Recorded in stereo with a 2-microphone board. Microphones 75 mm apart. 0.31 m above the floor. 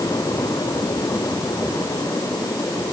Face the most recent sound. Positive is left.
No sound to turn to.